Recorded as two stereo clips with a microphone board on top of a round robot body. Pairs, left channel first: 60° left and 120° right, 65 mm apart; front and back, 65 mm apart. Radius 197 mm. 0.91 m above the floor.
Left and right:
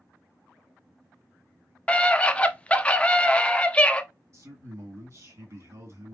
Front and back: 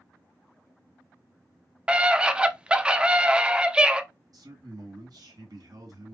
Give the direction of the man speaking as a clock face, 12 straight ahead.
5 o'clock.